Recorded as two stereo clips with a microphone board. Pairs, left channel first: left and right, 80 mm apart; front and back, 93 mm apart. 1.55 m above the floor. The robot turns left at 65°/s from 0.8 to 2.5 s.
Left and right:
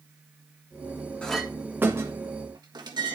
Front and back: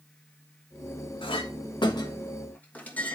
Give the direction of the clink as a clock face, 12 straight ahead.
12 o'clock.